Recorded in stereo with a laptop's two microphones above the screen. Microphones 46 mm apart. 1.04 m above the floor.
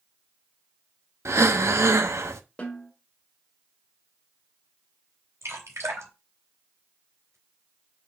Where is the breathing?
70° right (ahead or behind), 0.7 m.